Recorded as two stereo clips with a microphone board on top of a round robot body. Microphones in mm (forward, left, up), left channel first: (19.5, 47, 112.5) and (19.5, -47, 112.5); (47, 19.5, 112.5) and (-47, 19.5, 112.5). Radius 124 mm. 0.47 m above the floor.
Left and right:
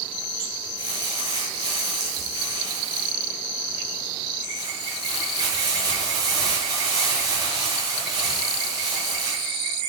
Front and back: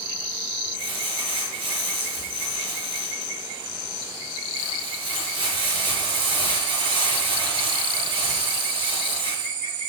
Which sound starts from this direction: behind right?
Crumpling, at 0.8 s.